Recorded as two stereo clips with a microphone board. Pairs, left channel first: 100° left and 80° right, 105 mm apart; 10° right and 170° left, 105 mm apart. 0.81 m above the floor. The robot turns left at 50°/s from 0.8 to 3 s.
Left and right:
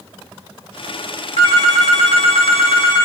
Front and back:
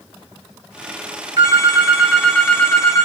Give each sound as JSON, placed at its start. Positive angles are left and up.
{"t": 1.4, "sound": "a phone ringing", "azimuth_deg": 120, "distance_m": 0.7}